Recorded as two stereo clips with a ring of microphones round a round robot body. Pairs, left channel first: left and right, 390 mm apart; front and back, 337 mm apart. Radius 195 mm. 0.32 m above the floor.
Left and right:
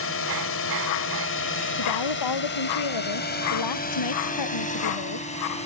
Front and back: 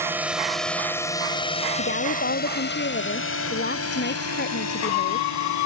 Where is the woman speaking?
60° left.